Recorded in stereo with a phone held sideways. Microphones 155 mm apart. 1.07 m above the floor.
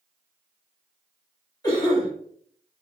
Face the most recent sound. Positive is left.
turn(degrees=25)  # may be behind; listen again after turning